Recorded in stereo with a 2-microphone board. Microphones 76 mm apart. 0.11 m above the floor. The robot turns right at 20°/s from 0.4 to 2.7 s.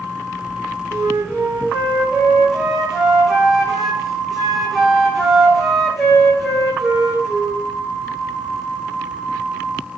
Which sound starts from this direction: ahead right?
A flute, at 0.9 s.